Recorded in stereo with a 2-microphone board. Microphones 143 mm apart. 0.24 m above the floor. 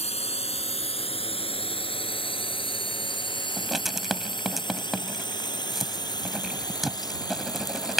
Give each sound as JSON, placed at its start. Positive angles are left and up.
{"t": 0.0, "sound": "a drone", "side_deg": 50}
{"t": 3.6, "sound": "writing", "side_deg": 0}